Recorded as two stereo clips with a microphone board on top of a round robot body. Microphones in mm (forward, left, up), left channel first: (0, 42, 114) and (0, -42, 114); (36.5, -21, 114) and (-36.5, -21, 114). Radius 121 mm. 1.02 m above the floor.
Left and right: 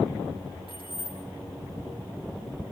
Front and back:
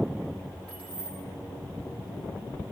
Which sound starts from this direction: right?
Keys jangling, at 0.7 s.